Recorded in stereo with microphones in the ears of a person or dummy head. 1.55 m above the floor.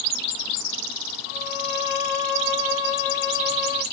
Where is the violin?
70° left (ahead or behind), 0.9 m.